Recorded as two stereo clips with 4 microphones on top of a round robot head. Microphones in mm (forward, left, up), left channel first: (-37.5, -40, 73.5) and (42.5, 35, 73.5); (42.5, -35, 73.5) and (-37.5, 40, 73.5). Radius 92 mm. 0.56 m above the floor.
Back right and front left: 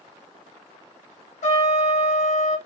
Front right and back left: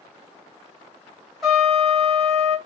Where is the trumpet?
135° right, 2.5 m.